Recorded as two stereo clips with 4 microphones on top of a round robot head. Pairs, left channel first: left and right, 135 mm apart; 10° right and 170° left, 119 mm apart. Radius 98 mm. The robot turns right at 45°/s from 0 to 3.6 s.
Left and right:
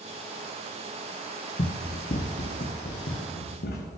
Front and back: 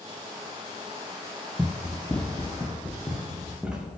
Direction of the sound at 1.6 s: 90° left.